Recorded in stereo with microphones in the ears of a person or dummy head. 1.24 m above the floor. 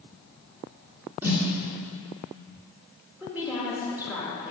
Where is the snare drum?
10° right (ahead or behind), 2 m.